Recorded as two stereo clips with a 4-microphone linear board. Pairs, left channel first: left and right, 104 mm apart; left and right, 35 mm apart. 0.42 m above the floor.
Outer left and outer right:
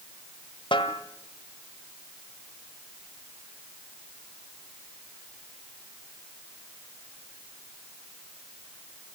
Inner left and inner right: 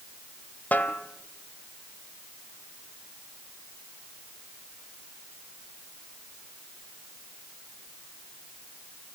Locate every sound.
0.7 s a snare drum: 55° left (ahead or behind), 1.9 m